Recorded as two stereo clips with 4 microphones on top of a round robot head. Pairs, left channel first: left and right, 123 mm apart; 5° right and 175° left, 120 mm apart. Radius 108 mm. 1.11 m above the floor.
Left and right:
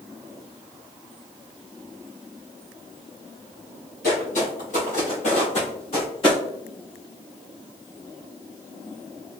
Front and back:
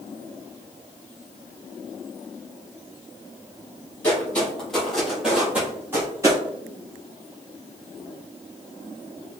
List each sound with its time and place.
4.0 s footsteps: 70° left, 1.8 m; by 6.4 s 125° left, 1.4 m